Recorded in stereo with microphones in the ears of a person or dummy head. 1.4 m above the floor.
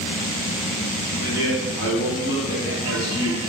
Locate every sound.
1.2 s a man speaking: 75° left (ahead or behind), 1.2 m